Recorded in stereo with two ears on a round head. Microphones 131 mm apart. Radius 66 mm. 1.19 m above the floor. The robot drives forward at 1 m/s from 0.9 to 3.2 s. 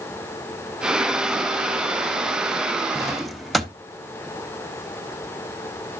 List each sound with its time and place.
3.0 s a drawer: centre (ahead or behind), 0.5 m